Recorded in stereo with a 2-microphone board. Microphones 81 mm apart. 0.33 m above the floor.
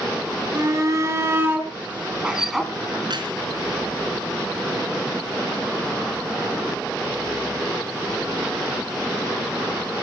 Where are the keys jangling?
65° right (ahead or behind), 3 m.